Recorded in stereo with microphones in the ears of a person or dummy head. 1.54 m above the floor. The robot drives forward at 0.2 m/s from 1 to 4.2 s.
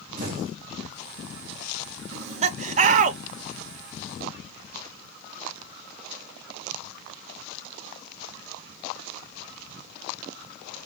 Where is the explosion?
50° right (ahead or behind), 1.2 m.